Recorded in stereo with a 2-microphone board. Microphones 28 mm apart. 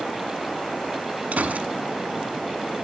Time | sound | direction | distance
1.3 | a gunshot | 70° right (ahead or behind) | 1.1 m